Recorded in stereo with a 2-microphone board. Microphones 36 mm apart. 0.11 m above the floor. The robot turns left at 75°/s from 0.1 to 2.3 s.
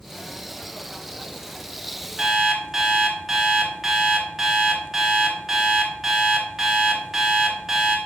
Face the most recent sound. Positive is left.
turn(degrees=-5)  # may be behind; listen again after turning